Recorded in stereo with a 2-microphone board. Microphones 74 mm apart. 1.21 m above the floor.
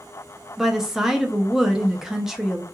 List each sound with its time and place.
0.6 s a woman speaking: 5° right (ahead or behind), 0.6 m